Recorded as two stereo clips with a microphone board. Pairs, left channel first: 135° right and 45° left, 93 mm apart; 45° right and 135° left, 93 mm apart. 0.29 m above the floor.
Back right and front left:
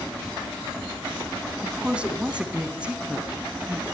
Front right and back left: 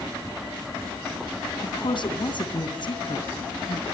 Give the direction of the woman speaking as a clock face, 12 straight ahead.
1 o'clock.